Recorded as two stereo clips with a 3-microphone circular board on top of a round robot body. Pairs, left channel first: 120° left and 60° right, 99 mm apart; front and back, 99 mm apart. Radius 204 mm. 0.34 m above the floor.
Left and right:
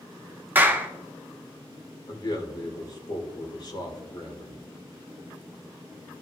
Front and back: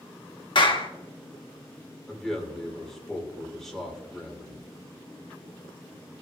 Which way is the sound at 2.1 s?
90° left.